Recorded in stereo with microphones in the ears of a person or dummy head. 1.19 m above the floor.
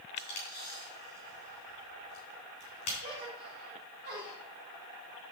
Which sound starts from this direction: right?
A gasp, at 3.0 s.